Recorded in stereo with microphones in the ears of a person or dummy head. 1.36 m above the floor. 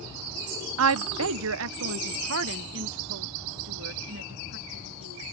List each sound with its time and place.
0.8 s a woman speaking: 75° right (ahead or behind); by 5.2 s 65° right (ahead or behind)